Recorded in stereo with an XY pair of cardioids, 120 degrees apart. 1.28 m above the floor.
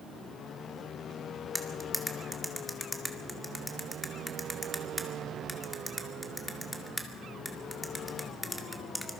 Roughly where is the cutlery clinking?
Ahead.